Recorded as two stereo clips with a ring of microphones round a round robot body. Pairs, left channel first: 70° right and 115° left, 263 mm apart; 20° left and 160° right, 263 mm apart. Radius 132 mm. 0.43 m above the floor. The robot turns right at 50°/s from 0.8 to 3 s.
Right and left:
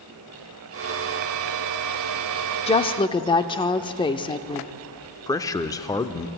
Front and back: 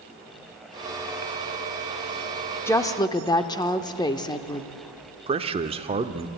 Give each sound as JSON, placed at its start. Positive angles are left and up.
{"t": 2.7, "sound": "a woman speaking", "azimuth_deg": -45, "distance_m": 0.7}
{"t": 5.3, "sound": "a man speaking", "azimuth_deg": -125, "distance_m": 0.7}